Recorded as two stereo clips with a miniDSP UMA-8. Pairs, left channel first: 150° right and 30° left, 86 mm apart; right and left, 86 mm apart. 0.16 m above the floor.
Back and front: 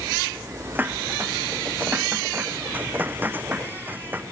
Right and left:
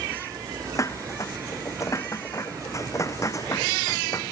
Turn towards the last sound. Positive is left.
turn(degrees=-40)